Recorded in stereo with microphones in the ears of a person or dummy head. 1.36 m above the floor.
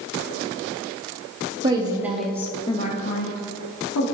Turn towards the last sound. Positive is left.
turn(degrees=80)